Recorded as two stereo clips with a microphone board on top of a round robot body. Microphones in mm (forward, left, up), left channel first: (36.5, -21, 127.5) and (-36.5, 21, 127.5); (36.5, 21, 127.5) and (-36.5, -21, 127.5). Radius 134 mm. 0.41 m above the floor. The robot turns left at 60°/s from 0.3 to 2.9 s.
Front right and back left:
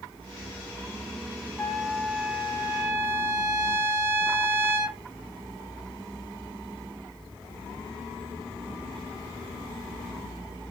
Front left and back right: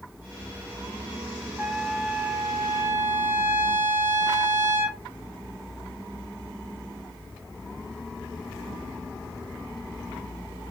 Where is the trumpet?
95° right, 0.8 m; by 5.0 s 170° right, 0.8 m.